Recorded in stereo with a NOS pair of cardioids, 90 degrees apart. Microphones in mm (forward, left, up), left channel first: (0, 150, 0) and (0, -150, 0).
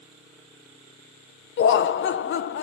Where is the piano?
I don't hear a piano.